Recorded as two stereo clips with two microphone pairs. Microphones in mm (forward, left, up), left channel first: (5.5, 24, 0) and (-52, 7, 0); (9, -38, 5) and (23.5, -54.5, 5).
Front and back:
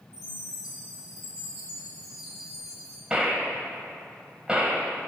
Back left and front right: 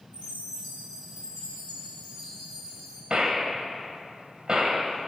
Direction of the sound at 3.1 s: 95° right.